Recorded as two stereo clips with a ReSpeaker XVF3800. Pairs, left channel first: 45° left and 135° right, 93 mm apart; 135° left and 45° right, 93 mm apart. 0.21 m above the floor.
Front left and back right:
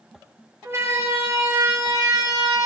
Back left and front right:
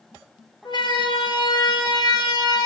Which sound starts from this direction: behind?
A siren, at 0.7 s.